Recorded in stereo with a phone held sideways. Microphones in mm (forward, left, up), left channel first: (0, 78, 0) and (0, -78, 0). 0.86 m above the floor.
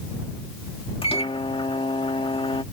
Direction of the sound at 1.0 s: 35° left (ahead or behind).